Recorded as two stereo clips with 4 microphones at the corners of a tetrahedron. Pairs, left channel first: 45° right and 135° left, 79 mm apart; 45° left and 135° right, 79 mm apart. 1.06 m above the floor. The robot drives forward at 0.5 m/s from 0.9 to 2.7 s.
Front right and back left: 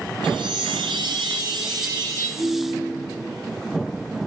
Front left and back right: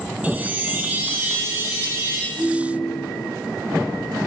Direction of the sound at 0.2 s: 155° left.